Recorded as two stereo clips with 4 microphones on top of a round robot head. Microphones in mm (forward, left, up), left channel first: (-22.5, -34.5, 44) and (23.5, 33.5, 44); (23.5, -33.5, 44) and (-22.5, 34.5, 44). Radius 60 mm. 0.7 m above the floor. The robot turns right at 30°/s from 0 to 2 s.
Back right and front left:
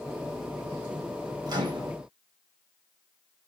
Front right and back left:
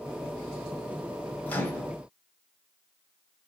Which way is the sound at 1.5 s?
15° left.